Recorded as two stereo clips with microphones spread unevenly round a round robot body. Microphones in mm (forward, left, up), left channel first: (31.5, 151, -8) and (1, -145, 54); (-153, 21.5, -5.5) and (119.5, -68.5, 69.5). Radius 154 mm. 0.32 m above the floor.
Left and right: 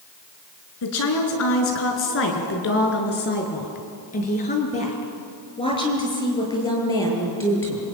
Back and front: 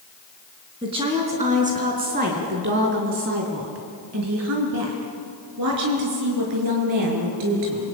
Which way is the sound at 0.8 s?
60° left.